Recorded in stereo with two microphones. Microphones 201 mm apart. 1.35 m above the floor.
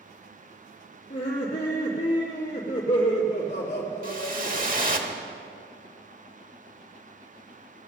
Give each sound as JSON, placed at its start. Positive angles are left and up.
{"t": 1.1, "sound": "laughter", "side_deg": 35, "distance_m": 2.5}
{"t": 4.0, "sound": "a whoosh", "side_deg": -45, "distance_m": 1.1}